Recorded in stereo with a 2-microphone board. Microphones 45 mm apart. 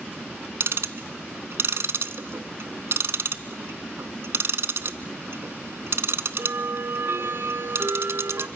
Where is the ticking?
65° right (ahead or behind), 0.6 m.